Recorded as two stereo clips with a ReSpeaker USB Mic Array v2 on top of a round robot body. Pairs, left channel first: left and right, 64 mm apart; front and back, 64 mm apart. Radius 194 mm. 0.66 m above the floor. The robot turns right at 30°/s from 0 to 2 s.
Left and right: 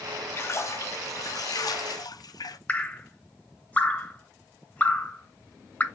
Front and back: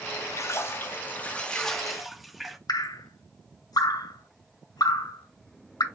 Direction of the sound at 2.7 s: 20° left.